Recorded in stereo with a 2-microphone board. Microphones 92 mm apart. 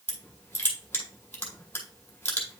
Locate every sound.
0.1 s crushing: 20° left (ahead or behind), 2 m